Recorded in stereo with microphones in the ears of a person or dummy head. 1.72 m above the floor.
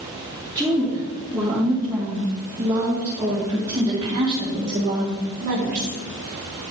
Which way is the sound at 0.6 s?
5° left (ahead or behind).